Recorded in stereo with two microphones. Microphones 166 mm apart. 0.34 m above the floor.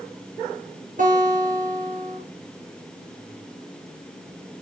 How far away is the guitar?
About 6 m.